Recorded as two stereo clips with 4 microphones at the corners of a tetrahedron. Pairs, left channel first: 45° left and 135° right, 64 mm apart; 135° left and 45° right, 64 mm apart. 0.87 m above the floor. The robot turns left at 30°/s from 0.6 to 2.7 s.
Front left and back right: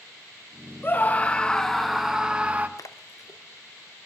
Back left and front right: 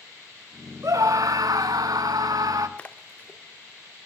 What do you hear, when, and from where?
0.8 s a scream: 15° right, 1.1 m; by 2.7 s 70° right, 1.1 m
2.8 s a splash: 65° left, 0.8 m